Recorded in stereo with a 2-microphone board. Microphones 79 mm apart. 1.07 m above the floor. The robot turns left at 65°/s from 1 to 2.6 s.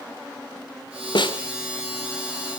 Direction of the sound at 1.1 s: 75° left (ahead or behind).